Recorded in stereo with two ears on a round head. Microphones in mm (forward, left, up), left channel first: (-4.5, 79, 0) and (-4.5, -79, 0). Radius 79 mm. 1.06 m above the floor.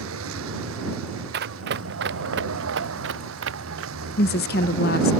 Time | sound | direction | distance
0.0 | a vehicle | 85° right | ?
1.3 | running footsteps | 60° right (ahead or behind) | ?
4.2 | a woman speaking | 55° left (ahead or behind) | ?